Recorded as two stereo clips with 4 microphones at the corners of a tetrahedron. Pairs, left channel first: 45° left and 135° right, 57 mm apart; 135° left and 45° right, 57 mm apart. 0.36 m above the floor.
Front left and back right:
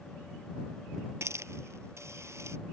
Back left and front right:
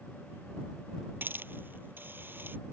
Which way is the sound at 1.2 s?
95° right.